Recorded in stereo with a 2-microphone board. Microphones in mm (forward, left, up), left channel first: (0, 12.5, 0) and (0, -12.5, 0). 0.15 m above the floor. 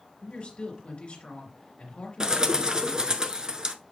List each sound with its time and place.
0.2 s a woman speaking: 45° left (ahead or behind), 2.5 m
2.2 s a bird: 30° right (ahead or behind), 0.6 m